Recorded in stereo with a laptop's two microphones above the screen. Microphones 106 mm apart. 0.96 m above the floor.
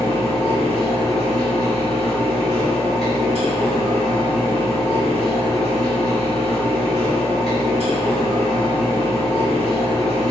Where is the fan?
75° left (ahead or behind), 1.7 m.